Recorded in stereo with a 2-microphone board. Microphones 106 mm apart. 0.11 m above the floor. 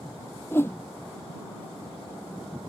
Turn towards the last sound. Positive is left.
turn(degrees=20)  # may be behind; listen again after turning